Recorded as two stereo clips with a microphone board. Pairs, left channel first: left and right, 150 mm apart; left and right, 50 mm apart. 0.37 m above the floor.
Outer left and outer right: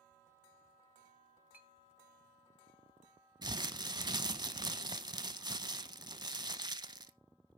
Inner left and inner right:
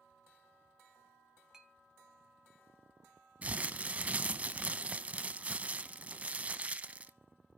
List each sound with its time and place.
1.5 s a clink: 10° right (ahead or behind), 1.1 m
3.4 s crumpling: 30° right (ahead or behind), 0.7 m